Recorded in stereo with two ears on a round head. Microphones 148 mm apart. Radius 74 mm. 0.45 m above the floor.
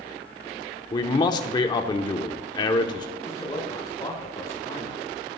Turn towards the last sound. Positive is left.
turn(degrees=25)  # may be behind; listen again after turning